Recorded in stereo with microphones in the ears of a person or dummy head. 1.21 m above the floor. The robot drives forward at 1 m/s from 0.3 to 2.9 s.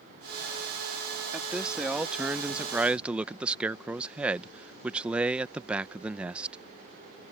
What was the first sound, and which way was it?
A man speaking, centre (ahead or behind).